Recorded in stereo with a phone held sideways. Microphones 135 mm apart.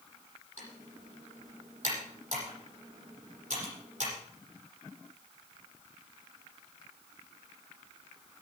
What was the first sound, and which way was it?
Typing on a keyboard, 75° right (ahead or behind).